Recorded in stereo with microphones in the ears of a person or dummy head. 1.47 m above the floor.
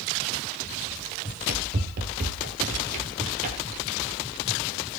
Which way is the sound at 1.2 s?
45° right (ahead or behind).